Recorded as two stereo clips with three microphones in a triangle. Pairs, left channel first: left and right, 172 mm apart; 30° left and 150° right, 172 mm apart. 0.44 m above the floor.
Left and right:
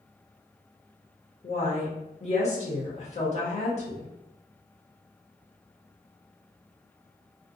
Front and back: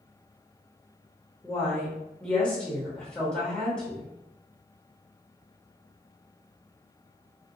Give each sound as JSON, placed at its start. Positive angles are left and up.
{"t": 1.4, "sound": "a woman speaking", "azimuth_deg": 110, "distance_m": 1.0}